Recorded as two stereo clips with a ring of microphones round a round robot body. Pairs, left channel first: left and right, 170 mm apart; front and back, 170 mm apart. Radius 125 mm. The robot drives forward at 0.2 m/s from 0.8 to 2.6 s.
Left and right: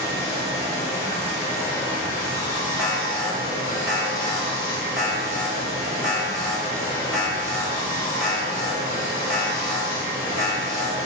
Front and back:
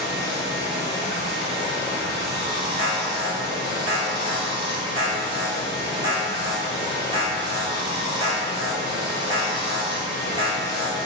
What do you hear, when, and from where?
0.0 s running water: 170° left, 1.5 m
2.8 s an alarm: 175° right, 1.8 m